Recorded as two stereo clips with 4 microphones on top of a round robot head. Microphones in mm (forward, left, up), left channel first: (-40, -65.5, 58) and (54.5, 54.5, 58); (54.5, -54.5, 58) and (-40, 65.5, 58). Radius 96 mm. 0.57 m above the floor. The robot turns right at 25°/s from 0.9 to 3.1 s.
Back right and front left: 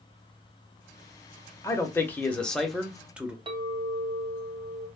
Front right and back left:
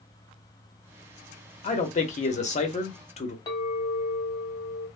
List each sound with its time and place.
1.6 s a man speaking: 65° right, 0.8 m; by 3.4 s 30° right, 0.8 m
3.5 s a clink: 10° left, 1.0 m